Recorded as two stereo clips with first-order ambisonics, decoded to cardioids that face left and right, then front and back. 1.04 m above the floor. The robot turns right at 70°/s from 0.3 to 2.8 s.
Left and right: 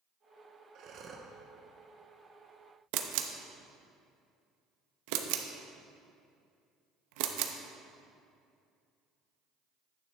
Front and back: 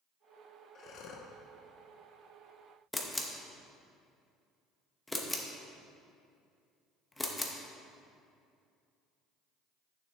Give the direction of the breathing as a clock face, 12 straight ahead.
2 o'clock.